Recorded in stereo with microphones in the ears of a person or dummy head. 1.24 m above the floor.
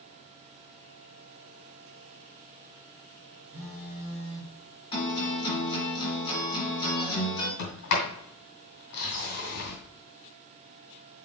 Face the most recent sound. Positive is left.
turn(degrees=60)  # may be behind; listen again after turning